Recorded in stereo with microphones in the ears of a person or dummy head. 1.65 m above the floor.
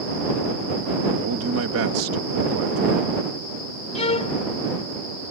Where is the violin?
35° left (ahead or behind).